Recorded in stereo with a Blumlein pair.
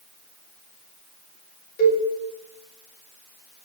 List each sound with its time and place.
1.8 s a cowbell: 45° left, 2 m